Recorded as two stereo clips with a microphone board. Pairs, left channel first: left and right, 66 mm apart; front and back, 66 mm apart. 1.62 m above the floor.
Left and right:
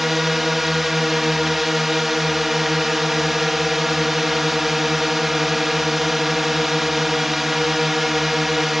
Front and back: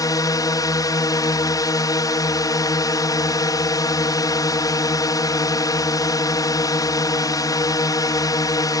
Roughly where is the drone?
Ahead.